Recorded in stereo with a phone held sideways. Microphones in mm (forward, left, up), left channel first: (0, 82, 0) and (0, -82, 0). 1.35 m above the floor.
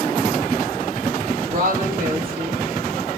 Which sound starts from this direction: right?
A woman speaking, at 1.5 s.